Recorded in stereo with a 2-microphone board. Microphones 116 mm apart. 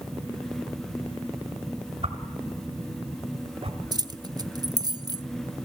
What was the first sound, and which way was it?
A whoosh, 55° right (ahead or behind).